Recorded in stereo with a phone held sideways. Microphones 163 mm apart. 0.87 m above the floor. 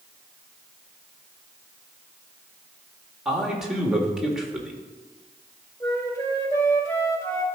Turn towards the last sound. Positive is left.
turn(degrees=20)  # may be behind; listen again after turning